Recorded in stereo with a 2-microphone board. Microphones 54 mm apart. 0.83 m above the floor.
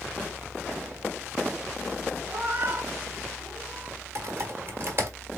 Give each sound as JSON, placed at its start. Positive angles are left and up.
{"t": 2.3, "sound": "a cat meowing", "side_deg": -40, "distance_m": 4.0}
{"t": 4.2, "sound": "typing on a keyboard", "side_deg": -45, "distance_m": 1.9}